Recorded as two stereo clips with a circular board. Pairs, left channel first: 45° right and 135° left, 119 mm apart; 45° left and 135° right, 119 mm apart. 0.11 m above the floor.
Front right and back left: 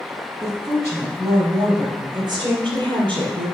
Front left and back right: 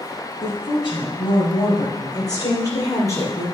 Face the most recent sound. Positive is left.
turn(degrees=105)